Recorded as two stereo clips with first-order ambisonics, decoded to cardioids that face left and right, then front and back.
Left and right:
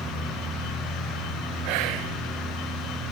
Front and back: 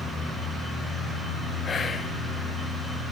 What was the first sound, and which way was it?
Whispering, 70° right.